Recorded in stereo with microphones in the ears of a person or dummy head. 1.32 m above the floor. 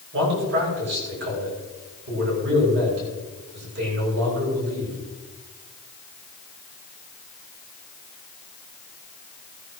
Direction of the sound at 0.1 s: 55° right (ahead or behind).